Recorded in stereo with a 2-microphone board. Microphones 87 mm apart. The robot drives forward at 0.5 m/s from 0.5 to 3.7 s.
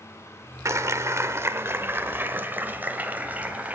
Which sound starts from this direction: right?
A clap, at 0.7 s.